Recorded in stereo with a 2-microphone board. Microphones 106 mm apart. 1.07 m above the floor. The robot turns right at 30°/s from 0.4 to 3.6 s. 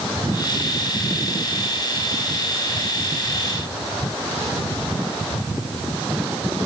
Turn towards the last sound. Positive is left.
No sound to turn to.